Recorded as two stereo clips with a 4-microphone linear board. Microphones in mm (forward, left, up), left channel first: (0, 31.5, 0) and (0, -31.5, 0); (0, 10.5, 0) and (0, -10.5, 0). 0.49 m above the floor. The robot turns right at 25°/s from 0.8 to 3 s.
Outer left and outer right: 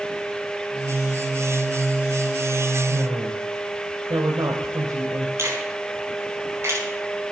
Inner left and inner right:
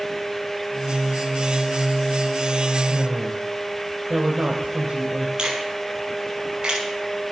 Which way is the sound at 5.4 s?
45° right (ahead or behind).